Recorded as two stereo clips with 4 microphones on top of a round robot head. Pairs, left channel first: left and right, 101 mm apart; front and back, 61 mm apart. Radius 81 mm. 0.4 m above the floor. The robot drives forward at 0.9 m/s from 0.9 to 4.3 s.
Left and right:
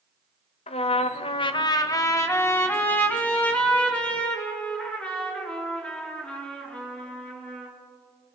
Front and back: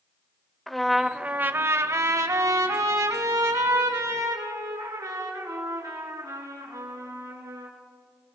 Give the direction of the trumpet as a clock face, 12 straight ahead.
9 o'clock.